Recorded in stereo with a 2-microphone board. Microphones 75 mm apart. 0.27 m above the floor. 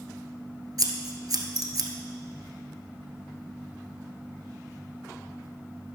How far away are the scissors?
About 1.1 m.